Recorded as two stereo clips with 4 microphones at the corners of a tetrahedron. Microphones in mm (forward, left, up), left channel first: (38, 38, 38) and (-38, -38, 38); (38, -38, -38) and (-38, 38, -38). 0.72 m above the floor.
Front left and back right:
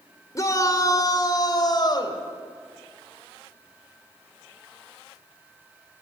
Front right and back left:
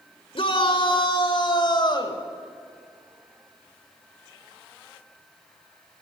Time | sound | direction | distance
0.3 | a shout | 10° right | 2 m